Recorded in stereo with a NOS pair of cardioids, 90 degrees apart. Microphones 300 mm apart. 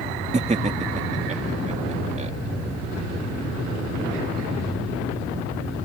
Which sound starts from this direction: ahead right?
Laughter, at 0.3 s.